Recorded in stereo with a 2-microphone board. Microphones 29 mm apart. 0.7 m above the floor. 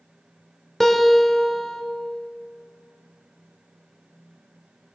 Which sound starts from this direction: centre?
A guitar, at 0.8 s.